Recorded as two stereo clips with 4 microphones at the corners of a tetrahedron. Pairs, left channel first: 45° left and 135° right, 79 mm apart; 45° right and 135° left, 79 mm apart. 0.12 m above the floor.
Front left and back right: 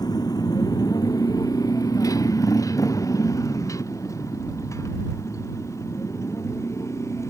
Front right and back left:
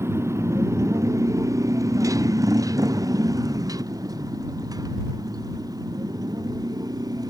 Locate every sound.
0.0 s a motorcycle: 80° left; by 7.3 s 100° left